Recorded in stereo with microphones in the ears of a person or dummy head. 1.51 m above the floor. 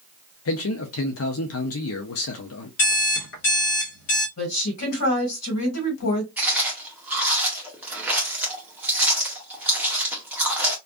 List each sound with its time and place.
0.5 s a man speaking: 70° left (ahead or behind), 0.5 m
2.8 s an alarm clock: 55° left (ahead or behind), 1.3 m
4.4 s a woman speaking: 90° left, 1.5 m
6.4 s chewing: 10° right (ahead or behind), 0.7 m